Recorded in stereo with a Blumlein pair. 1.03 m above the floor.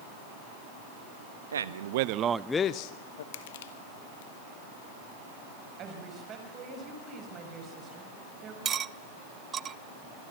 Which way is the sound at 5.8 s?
30° right.